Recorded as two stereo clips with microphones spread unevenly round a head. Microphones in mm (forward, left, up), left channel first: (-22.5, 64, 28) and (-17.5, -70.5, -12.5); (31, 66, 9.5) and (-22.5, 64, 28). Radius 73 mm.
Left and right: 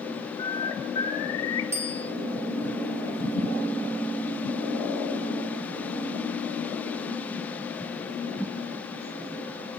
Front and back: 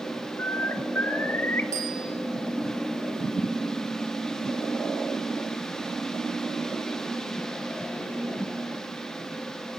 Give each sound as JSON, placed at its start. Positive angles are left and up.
{"t": 0.4, "sound": "a bird", "azimuth_deg": 60, "distance_m": 1.9}
{"t": 1.7, "sound": "a bicycle bell", "azimuth_deg": -160, "distance_m": 7.0}